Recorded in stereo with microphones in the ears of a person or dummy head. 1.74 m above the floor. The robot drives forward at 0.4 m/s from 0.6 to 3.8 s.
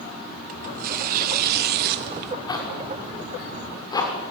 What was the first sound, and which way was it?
Tearing paper, 40° right (ahead or behind).